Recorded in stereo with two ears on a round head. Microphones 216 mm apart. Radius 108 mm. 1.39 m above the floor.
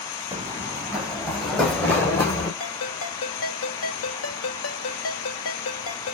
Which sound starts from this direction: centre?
Running footsteps, at 0.3 s.